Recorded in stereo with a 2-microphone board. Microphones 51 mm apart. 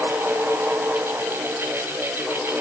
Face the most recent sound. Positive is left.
No sound to turn to.